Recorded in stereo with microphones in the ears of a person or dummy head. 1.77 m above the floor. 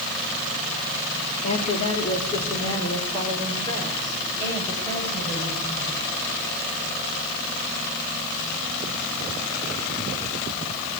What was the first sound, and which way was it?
A woman speaking, 40° left (ahead or behind).